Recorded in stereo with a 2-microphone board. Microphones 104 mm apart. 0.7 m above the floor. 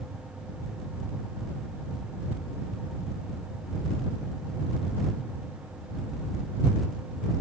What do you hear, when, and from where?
Only background noise.